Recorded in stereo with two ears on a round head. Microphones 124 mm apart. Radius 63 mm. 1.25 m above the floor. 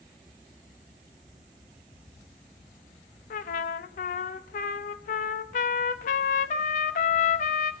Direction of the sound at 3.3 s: 65° left (ahead or behind).